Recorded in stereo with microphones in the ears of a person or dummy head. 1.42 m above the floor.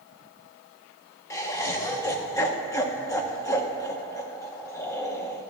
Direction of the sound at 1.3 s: 20° left (ahead or behind).